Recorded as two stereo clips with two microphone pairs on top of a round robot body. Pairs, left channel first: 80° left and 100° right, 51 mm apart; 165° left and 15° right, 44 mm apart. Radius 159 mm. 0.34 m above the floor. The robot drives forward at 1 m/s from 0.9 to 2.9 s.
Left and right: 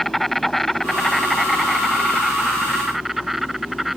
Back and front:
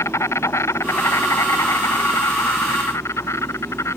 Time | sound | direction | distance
0.0 | an insect | 165° left | ?